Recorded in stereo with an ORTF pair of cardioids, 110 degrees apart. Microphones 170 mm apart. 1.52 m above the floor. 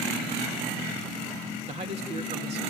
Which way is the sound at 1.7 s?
40° right.